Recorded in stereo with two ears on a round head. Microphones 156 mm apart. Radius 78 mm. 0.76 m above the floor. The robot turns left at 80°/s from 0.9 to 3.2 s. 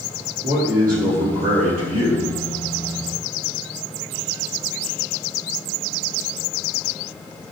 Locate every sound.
0.4 s a man speaking: 60° right, 1.7 m; by 2.3 s 175° right, 1.7 m